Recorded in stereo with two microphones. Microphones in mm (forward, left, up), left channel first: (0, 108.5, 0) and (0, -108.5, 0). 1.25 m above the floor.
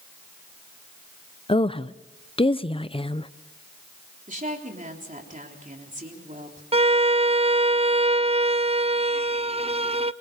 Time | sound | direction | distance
1.5 | a woman speaking | 25° left (ahead or behind) | 0.5 m
4.3 | a woman speaking | 35° right (ahead or behind) | 3.5 m
6.7 | a violin | 30° right (ahead or behind) | 0.5 m